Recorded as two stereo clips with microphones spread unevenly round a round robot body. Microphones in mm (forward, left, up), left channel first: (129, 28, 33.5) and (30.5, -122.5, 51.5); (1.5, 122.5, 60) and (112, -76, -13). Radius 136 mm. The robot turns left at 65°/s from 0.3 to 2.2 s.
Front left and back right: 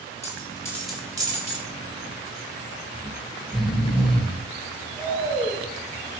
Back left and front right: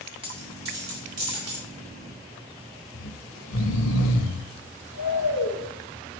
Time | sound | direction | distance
0.2 | a dropped coin | 5° left | 4.5 m
2.9 | snoring | 140° left | 1.2 m